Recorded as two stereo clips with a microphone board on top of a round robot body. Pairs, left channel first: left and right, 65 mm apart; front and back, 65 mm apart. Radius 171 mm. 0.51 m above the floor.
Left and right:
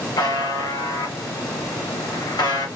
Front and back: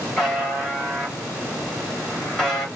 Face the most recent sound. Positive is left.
turn(degrees=80)